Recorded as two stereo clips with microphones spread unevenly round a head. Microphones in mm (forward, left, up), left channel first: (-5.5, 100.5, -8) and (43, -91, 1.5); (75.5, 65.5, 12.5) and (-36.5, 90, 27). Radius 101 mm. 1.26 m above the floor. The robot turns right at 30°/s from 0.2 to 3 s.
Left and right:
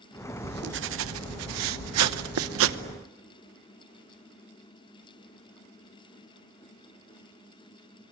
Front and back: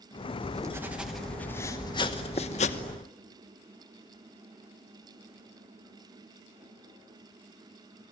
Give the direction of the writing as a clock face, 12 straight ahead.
4 o'clock.